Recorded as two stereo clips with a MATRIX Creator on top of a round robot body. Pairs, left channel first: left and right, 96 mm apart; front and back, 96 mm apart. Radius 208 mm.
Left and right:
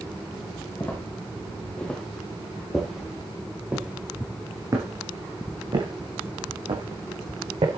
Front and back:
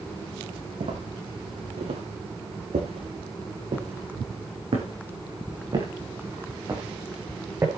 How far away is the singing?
No singing in this recording.